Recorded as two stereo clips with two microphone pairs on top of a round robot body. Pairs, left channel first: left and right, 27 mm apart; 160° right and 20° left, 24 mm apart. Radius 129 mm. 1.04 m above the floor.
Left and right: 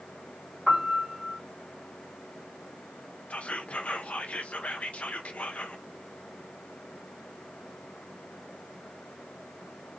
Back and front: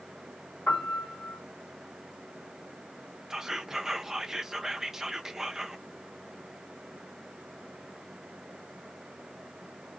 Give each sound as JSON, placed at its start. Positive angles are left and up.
{"t": 0.7, "sound": "a piano", "azimuth_deg": -165, "distance_m": 1.3}
{"t": 3.3, "sound": "whispering", "azimuth_deg": 80, "distance_m": 0.6}